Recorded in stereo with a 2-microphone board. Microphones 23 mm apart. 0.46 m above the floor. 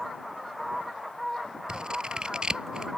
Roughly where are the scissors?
Right.